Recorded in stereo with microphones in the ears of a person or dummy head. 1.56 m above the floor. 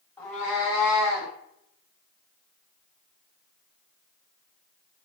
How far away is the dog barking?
No dog barking in this recording.